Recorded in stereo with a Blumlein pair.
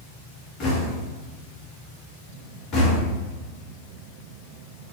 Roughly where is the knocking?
Ahead left.